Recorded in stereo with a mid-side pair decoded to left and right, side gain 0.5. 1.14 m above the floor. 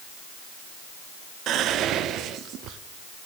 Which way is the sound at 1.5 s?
65° right.